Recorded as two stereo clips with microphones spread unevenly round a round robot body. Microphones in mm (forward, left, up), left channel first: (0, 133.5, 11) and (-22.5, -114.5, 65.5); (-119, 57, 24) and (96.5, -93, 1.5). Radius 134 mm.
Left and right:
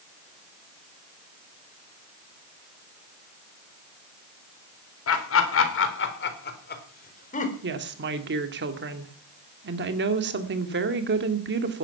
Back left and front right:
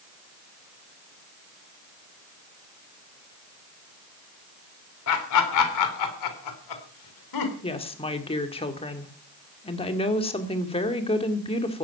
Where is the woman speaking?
145° right, 2 m.